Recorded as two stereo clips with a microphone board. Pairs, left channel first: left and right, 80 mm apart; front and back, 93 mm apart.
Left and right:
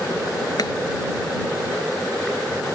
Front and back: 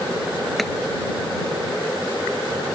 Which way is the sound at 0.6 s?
90° left.